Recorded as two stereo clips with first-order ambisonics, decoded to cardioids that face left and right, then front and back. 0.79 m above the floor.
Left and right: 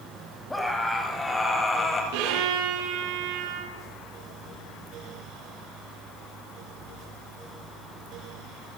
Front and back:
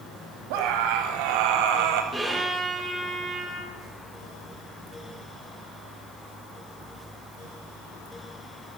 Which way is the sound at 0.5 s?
175° left.